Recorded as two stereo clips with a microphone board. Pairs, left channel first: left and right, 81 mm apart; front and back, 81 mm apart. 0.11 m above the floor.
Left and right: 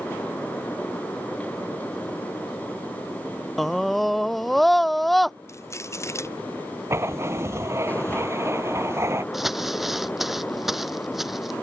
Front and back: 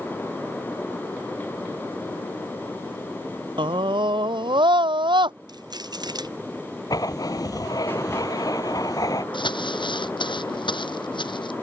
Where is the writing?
35° right.